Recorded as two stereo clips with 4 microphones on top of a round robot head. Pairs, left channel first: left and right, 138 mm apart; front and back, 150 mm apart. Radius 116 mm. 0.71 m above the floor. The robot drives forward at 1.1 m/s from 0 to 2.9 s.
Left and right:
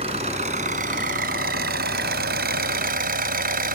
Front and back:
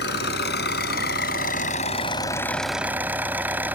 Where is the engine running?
30° right; by 3.8 s 100° right.